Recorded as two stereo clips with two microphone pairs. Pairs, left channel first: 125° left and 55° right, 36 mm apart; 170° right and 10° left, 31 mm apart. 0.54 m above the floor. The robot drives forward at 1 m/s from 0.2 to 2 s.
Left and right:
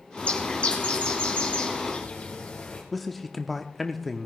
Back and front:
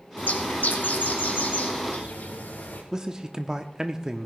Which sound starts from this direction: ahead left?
A man speaking, at 2.9 s.